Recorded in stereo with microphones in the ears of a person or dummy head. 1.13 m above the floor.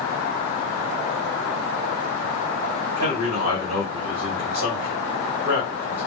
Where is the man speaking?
50° right (ahead or behind), 1.5 m.